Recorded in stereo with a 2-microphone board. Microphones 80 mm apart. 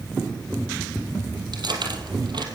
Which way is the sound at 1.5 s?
65° right (ahead or behind).